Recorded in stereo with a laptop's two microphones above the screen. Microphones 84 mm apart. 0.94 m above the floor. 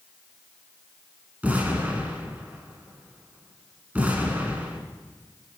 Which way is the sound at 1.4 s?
20° right (ahead or behind).